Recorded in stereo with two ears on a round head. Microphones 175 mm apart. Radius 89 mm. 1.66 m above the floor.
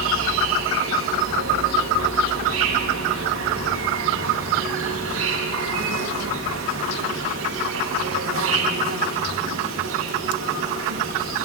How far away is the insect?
About 3.5 m.